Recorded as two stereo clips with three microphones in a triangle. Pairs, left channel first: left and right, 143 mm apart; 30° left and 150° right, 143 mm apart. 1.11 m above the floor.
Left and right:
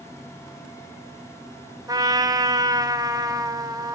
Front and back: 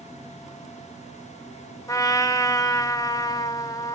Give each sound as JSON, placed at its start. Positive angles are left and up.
{"t": 1.9, "sound": "a trumpet", "azimuth_deg": -30, "distance_m": 1.2}